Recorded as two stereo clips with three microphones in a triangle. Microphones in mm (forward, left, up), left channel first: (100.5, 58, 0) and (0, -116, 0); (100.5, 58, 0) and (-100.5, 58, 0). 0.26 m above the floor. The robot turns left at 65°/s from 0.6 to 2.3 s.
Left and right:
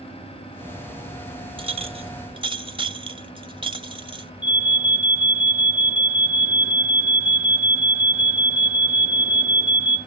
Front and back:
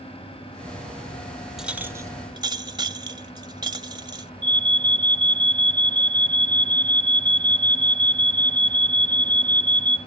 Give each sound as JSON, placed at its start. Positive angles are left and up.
{"t": 1.6, "sound": "a clink", "azimuth_deg": -95, "distance_m": 0.6}
{"t": 4.4, "sound": "an alarm", "azimuth_deg": 160, "distance_m": 2.0}